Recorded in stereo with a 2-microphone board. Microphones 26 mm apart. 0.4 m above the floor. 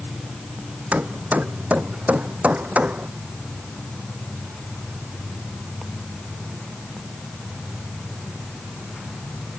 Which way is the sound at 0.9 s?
85° right.